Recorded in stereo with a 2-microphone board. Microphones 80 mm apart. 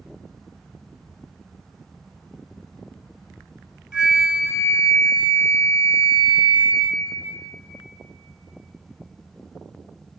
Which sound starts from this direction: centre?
A flute, at 3.9 s.